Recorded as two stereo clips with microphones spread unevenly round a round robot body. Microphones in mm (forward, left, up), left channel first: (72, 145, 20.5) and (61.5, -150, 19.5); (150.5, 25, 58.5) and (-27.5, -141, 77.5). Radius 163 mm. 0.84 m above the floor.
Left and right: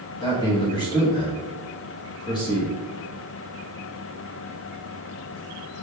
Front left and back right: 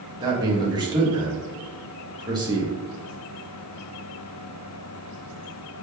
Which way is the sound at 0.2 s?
155° left.